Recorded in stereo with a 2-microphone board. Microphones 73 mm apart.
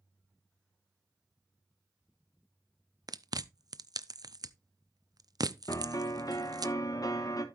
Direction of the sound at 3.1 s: 60° right (ahead or behind).